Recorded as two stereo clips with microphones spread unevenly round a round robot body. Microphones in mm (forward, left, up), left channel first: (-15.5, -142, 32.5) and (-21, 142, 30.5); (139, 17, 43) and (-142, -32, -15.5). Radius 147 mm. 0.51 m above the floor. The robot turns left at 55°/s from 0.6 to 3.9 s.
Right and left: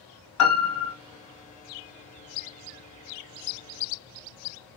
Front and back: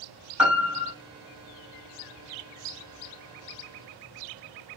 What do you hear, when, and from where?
0.4 s a piano: 95° right, 1.5 m; by 0.9 s 110° right, 1.5 m